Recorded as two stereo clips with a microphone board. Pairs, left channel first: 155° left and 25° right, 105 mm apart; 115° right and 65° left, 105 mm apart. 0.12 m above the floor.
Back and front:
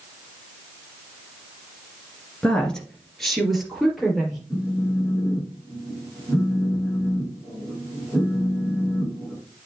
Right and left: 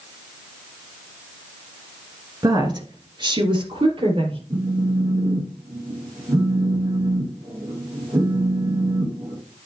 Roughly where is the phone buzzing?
Left.